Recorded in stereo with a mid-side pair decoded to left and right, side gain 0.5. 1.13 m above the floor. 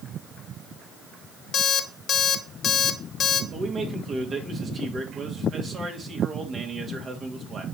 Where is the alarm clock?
55° left, 1.1 m.